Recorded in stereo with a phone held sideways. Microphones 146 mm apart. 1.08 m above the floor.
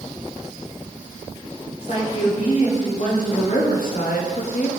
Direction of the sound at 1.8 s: 50° left (ahead or behind).